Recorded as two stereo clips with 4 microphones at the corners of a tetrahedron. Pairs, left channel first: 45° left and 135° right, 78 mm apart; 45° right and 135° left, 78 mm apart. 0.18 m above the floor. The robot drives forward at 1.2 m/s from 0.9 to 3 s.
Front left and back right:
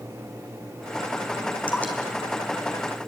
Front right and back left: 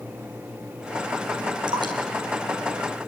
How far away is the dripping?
About 3.5 m.